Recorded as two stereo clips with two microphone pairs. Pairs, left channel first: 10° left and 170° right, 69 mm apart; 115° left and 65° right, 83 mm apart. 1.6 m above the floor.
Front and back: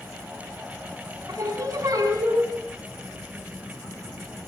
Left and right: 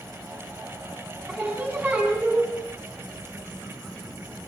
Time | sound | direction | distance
1.3 | singing | 130° right | 7.5 m